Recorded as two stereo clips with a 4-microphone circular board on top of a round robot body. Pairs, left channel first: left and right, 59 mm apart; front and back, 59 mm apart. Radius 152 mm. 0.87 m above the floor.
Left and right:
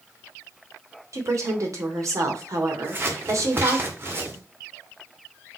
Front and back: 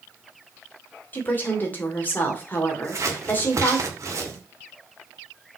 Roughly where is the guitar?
I don't hear a guitar.